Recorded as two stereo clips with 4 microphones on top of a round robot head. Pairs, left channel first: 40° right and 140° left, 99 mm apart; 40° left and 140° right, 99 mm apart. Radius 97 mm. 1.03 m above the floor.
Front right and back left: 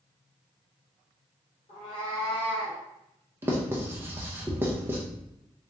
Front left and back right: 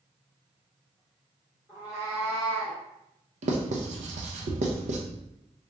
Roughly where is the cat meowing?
Ahead right.